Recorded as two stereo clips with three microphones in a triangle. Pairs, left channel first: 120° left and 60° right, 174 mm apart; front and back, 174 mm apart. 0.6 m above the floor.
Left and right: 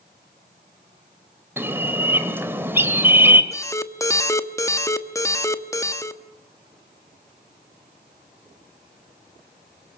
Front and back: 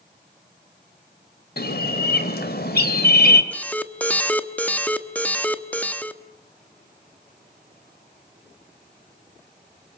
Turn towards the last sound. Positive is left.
turn(degrees=70)